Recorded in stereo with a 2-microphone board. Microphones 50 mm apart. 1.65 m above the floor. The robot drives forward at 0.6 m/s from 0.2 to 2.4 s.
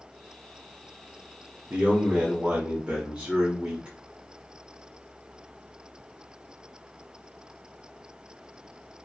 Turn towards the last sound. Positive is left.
turn(degrees=-30)  # may be behind; listen again after turning